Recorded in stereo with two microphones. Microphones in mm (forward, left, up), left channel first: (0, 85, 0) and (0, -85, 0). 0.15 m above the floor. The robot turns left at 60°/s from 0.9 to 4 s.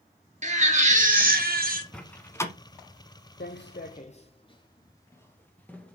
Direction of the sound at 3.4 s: 75° left (ahead or behind).